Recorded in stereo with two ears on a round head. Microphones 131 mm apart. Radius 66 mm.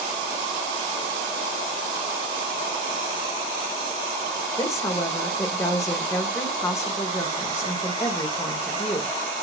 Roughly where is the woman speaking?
Left.